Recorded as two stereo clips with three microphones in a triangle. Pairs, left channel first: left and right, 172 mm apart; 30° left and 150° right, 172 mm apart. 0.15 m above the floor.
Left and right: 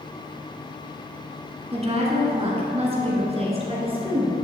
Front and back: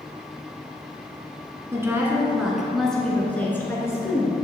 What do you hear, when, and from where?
1.7 s a woman speaking: 85° right, 1.7 m; by 4.3 s 40° right, 2.5 m